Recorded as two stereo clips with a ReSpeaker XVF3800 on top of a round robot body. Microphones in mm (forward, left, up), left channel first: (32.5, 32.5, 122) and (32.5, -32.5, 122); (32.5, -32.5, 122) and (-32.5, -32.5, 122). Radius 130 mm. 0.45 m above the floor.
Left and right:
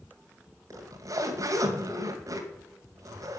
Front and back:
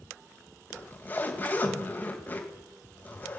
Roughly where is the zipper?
Ahead right.